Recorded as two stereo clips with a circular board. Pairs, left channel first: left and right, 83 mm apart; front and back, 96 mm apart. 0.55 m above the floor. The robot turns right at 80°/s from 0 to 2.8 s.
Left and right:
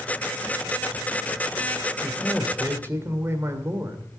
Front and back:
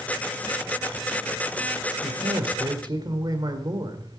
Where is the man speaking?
155° left, 1.8 m; by 4.2 s 145° right, 1.8 m.